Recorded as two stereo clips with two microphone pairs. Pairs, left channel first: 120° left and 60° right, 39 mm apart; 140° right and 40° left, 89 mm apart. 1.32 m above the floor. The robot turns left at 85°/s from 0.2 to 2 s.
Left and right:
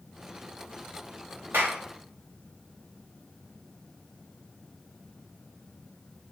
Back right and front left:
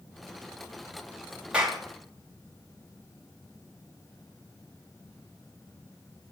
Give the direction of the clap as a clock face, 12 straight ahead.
1 o'clock.